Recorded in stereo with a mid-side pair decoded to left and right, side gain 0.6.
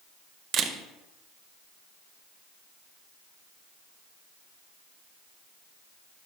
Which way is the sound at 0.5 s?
50° right.